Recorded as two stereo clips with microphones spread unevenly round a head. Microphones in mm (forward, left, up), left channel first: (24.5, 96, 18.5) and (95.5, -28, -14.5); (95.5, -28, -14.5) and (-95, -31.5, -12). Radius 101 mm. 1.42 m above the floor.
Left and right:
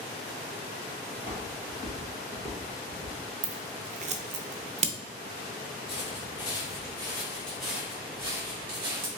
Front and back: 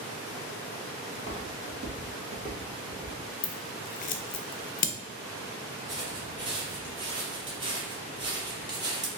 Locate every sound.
1.1 s footsteps: 175° right, 1.9 m; by 3.2 s 120° right, 1.5 m
3.4 s scissors: 25° right, 0.6 m
5.9 s footsteps: 120° left, 2.0 m; by 9.1 s 120° right, 1.8 m